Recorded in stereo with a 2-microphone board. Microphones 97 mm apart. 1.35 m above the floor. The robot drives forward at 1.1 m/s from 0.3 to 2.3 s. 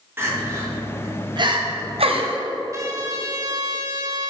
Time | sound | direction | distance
0.2 | crying | 25° right (ahead or behind) | 2 m
2.7 | a trumpet | 35° right (ahead or behind) | 1.1 m